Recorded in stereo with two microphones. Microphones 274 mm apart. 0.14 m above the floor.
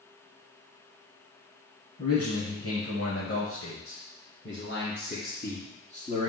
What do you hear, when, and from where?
2.0 s a man speaking: 55° left (ahead or behind), 3.5 m; by 6.3 s 15° left (ahead or behind), 1.7 m